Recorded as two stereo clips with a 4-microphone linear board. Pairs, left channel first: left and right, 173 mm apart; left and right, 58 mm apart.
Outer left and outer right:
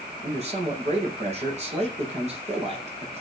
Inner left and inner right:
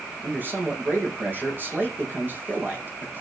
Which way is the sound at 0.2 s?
40° right (ahead or behind).